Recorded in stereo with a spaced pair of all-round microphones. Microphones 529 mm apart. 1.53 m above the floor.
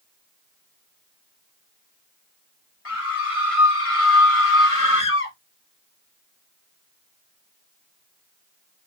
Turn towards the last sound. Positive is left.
turn(degrees=75)  # may be behind; listen again after turning